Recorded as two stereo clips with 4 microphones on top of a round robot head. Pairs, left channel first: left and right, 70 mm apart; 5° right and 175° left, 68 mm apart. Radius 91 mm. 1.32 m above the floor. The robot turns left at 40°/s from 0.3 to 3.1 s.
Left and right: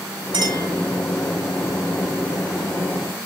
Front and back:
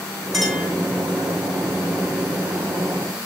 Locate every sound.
0.3 s a clink: 95° right, 4 m; by 0.7 s 110° right, 4 m